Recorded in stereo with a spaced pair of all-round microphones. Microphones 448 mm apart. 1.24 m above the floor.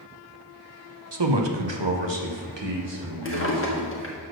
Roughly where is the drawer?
Left.